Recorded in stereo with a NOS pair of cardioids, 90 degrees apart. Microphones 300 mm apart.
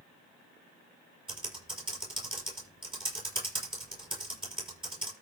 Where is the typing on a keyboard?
15° right, 6 m.